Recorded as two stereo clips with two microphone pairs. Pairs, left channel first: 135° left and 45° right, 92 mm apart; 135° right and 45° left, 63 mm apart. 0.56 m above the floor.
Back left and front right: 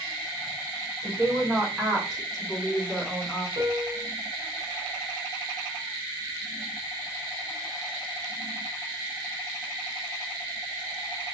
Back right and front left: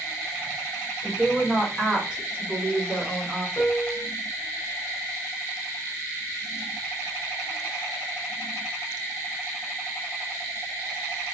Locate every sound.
1.0 s a woman speaking: 55° right, 1.1 m; by 3.5 s 90° left, 1.1 m
3.6 s a piano: 85° right, 0.7 m